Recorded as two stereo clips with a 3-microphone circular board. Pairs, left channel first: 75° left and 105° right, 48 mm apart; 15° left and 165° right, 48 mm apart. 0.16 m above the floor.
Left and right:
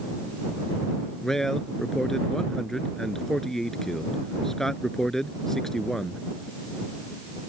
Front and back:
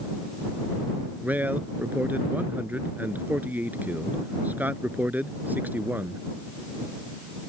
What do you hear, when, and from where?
1.2 s a man speaking: 155° left